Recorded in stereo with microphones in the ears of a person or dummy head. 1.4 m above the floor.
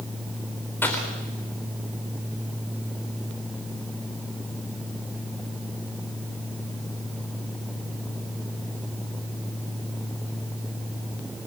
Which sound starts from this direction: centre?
A gunshot, at 0.8 s.